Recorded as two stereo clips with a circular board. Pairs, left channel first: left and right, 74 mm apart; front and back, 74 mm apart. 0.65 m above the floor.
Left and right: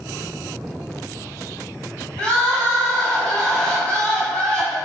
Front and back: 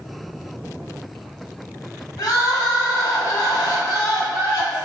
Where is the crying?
15° left, 1.5 m.